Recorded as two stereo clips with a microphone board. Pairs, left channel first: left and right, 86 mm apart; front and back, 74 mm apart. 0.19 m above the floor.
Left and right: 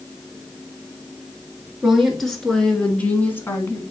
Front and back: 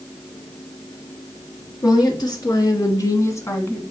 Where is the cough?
I don't hear a cough.